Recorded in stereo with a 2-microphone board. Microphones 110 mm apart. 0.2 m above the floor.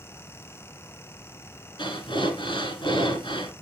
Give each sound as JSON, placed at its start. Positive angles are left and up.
{"t": 1.8, "sound": "breathing", "side_deg": 50, "distance_m": 1.9}